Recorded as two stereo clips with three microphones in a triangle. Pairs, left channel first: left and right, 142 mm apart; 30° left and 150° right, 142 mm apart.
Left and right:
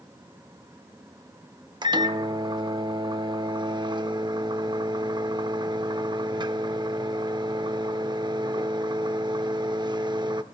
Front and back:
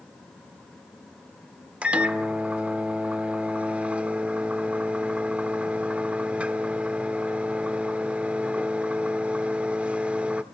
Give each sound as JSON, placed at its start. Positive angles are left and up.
{"t": 1.8, "sound": "a microwave", "azimuth_deg": -75, "distance_m": 0.6}